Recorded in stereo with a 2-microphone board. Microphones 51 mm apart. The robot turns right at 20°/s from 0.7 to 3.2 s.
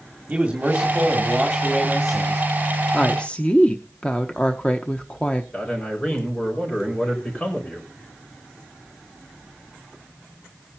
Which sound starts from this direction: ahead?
A man speaking, at 0.3 s.